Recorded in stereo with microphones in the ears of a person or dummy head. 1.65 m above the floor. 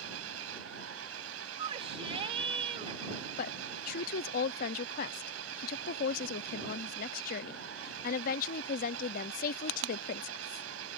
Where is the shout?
25° right (ahead or behind).